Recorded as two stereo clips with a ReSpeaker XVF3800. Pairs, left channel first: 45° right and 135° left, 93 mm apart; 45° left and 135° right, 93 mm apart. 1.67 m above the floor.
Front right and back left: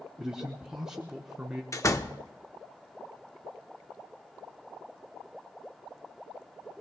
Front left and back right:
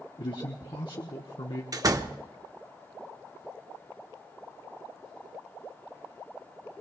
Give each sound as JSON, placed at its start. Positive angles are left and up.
{"t": 0.2, "sound": "a man speaking", "azimuth_deg": 55, "distance_m": 1.0}
{"t": 1.7, "sound": "a door slam", "azimuth_deg": -95, "distance_m": 0.8}